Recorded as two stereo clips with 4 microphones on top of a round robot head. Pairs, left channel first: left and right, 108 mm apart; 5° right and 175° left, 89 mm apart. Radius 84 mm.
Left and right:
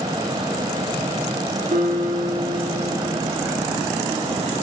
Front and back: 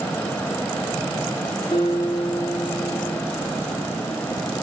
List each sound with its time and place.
1.7 s a guitar: 65° right, 4 m